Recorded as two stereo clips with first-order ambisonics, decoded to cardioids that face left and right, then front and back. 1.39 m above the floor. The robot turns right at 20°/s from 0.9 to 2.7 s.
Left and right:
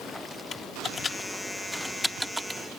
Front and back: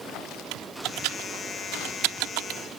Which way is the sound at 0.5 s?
160° left.